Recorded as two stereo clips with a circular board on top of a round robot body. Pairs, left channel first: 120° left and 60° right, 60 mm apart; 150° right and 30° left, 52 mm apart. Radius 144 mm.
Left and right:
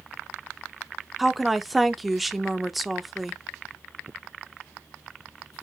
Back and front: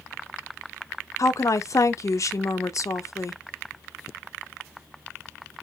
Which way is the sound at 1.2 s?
150° right.